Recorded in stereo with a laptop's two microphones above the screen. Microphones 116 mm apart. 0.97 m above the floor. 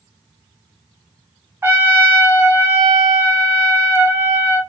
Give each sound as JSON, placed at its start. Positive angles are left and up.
{"t": 1.6, "sound": "a trumpet", "side_deg": -20, "distance_m": 0.6}